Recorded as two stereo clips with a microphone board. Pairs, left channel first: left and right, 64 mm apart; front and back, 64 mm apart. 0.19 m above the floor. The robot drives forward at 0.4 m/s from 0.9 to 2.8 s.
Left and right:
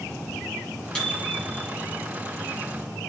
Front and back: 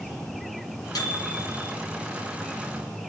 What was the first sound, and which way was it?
A microwave, 15° left.